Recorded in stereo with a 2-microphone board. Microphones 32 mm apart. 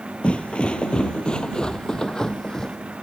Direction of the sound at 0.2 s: 35° left (ahead or behind).